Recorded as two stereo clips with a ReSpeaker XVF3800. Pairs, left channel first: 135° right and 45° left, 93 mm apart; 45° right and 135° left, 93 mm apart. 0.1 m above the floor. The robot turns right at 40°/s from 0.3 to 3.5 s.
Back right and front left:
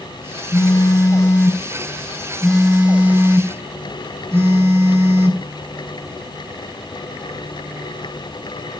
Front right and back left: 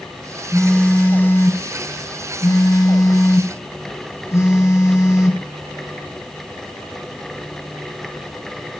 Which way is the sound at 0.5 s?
120° right.